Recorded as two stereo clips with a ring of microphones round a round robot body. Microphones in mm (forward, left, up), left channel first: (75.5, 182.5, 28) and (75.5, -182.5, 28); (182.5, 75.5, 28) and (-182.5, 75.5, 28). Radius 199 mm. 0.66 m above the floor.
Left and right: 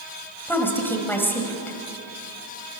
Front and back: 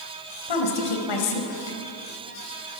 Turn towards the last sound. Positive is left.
turn(degrees=5)